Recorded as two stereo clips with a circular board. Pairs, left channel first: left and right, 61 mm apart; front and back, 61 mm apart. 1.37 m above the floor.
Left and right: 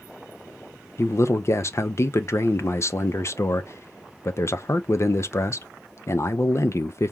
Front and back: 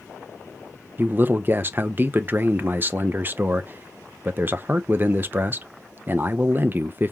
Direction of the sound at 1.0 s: 125° left.